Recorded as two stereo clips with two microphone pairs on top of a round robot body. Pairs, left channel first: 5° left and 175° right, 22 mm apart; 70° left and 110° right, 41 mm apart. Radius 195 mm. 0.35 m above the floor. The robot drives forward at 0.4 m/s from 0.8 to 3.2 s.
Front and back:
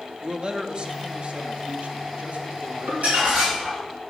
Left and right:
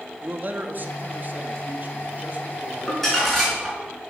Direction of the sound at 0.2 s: 140° right.